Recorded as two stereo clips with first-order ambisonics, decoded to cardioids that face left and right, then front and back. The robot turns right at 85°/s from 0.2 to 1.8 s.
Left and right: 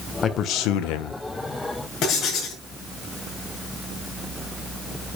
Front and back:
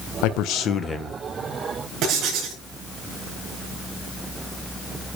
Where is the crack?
No crack in this recording.